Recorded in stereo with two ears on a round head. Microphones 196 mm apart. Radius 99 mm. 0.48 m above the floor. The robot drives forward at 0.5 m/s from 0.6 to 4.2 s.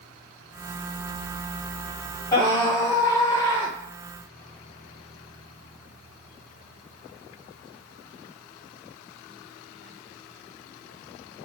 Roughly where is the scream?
Centre.